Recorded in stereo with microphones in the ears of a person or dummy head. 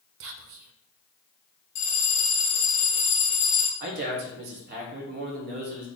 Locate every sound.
0.2 s whispering: 65° right (ahead or behind), 0.7 m
1.8 s a bell: 45° left (ahead or behind), 1.1 m
3.8 s a man speaking: 45° right (ahead or behind), 1.3 m